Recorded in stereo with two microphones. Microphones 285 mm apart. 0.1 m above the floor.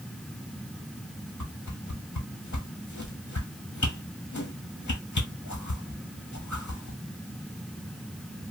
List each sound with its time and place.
1.4 s a whoosh: 80° left, 0.6 m